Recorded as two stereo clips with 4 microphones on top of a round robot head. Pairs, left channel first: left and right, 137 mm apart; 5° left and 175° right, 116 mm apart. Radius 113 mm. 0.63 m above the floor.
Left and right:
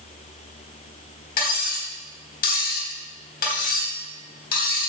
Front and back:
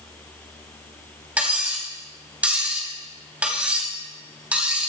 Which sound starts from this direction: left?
Cutlery clinking, at 1.4 s.